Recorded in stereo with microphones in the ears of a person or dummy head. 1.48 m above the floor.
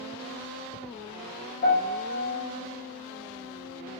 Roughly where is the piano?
Left.